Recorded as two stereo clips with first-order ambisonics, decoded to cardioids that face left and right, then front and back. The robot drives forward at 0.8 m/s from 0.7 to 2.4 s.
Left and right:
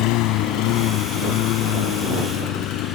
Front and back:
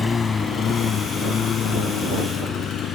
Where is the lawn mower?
75° left; by 3.0 s 55° left.